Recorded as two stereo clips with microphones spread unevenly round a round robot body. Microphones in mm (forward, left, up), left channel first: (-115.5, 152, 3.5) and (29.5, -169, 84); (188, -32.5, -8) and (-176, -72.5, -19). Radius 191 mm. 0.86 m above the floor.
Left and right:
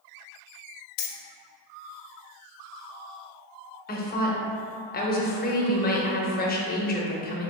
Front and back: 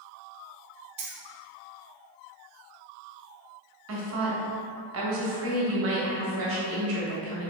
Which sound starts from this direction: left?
Keys jangling, at 1.0 s.